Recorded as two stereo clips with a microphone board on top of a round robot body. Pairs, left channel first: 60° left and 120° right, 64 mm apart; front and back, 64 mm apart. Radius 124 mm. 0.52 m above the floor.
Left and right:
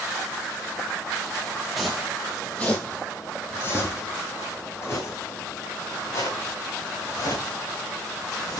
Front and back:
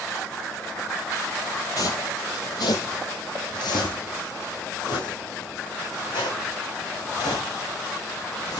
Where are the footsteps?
30° right, 1.2 m; by 8.6 s 20° left, 4 m.